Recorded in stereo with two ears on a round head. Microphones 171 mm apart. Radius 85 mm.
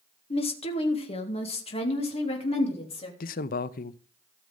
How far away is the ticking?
I don't hear ticking.